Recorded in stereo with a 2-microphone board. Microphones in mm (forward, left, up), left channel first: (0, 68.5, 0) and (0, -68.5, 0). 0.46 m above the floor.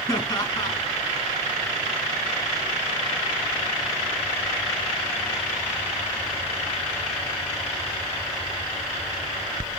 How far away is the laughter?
About 4.5 m.